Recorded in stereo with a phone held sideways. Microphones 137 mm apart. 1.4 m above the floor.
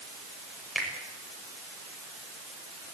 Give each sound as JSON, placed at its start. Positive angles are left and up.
{"t": 0.8, "sound": "a finger snap", "side_deg": 0, "distance_m": 5.5}